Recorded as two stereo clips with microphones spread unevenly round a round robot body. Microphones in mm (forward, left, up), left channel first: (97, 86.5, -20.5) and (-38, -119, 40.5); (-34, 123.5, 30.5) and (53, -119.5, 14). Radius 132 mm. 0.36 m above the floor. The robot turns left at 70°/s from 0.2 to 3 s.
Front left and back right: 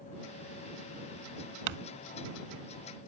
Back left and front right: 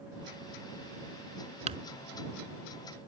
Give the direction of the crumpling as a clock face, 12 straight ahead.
5 o'clock.